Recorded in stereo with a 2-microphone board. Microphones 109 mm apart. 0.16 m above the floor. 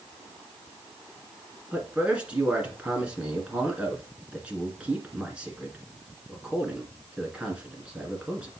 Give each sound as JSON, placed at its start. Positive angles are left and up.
{"t": 1.7, "sound": "a man speaking", "side_deg": -10, "distance_m": 2.0}